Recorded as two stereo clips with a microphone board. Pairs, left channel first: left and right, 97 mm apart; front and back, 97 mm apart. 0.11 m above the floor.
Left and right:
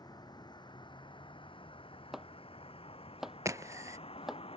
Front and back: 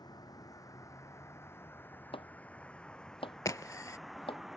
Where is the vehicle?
45° left; by 4.6 s 95° left.